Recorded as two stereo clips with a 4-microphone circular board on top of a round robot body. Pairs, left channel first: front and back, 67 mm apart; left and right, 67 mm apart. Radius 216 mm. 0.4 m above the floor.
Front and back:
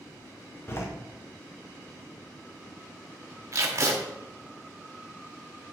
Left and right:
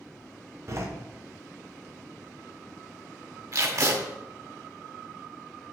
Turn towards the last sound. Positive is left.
turn(degrees=-135)